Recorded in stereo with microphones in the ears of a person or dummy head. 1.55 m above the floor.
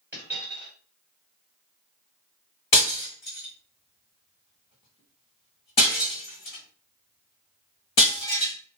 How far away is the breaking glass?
About 1.3 m.